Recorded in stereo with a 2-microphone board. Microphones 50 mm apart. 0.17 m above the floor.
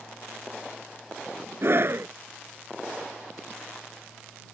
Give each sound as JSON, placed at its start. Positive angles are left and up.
{"t": 1.6, "sound": "a scream", "side_deg": -55}